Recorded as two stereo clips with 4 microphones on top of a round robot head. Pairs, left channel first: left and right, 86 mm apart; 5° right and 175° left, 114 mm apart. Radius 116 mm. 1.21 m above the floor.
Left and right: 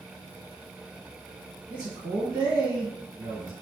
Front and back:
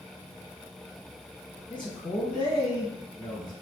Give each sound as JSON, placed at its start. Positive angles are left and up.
{"t": 1.7, "sound": "a man speaking", "azimuth_deg": -50, "distance_m": 1.1}